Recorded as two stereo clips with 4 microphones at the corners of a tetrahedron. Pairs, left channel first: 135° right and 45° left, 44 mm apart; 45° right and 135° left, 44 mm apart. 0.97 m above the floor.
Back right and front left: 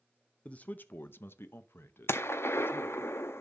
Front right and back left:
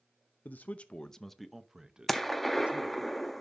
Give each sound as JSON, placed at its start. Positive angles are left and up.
{"t": 0.5, "sound": "a man speaking", "azimuth_deg": -80, "distance_m": 0.6}
{"t": 2.1, "sound": "a gunshot", "azimuth_deg": -130, "distance_m": 0.7}